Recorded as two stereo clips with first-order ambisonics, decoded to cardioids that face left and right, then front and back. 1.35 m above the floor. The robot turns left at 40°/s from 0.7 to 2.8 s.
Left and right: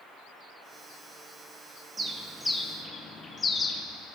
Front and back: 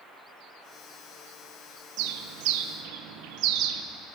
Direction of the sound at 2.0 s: 165° right.